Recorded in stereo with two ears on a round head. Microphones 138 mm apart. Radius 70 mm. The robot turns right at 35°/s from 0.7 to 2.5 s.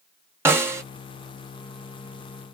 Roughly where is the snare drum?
Centre.